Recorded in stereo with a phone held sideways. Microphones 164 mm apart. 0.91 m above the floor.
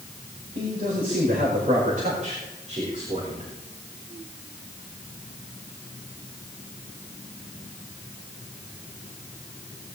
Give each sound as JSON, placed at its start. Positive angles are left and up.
{"t": 0.6, "sound": "a man speaking", "side_deg": -60, "distance_m": 5.0}